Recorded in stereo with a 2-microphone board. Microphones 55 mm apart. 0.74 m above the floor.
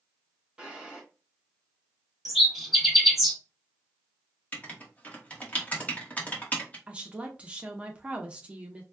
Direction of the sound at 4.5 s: 25° left (ahead or behind).